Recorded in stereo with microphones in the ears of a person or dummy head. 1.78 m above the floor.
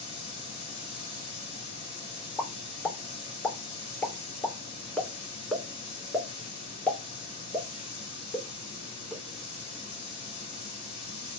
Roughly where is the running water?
Left.